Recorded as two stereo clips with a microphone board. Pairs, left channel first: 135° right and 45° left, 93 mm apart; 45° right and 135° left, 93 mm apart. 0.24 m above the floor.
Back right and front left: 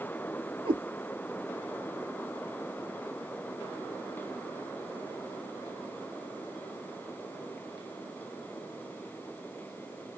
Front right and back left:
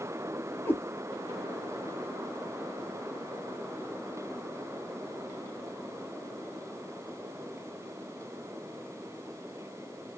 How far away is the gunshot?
I don't hear a gunshot.